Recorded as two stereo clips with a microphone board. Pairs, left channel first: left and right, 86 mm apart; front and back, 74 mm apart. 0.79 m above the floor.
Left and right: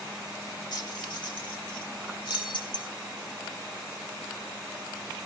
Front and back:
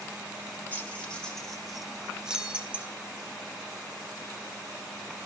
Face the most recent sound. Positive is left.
turn(degrees=110)